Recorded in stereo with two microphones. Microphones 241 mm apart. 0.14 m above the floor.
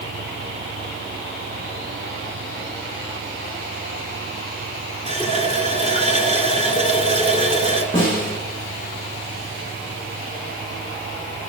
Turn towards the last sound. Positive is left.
turn(degrees=20)  # may be behind; listen again after turning